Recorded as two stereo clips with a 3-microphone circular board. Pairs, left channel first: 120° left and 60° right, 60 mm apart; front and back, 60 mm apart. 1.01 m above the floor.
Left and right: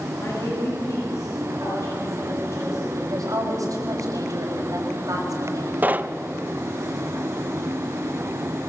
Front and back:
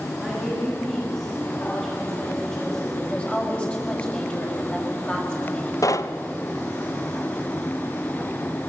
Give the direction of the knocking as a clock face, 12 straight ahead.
12 o'clock.